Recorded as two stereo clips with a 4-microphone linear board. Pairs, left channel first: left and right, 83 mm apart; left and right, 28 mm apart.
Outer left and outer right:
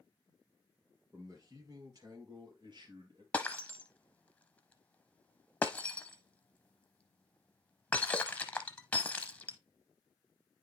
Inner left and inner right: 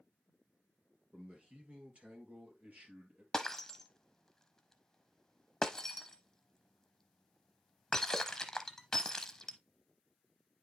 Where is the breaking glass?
15° left (ahead or behind), 0.7 m.